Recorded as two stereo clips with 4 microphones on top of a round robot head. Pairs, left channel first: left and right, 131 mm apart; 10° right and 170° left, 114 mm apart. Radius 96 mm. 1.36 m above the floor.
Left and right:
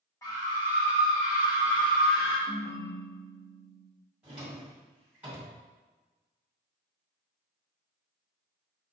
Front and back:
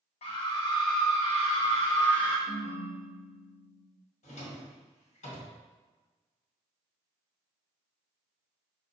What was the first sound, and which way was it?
A scream, 15° left.